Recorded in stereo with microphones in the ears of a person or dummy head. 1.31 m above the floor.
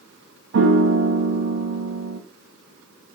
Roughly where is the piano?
Right.